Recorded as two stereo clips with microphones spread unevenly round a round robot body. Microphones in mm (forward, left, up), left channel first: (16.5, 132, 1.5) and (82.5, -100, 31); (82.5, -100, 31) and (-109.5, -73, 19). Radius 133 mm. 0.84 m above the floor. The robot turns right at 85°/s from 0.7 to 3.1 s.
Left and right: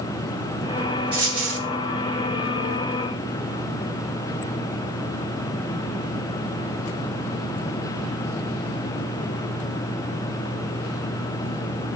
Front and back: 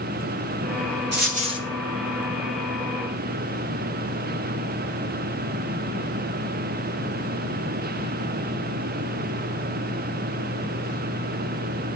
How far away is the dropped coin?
About 2.5 m.